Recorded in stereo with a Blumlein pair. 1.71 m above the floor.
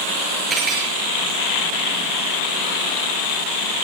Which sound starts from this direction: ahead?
Cutlery clinking, at 0.5 s.